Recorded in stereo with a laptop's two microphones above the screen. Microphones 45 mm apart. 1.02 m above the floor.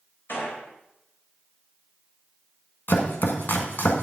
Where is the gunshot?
50° left (ahead or behind), 4 m.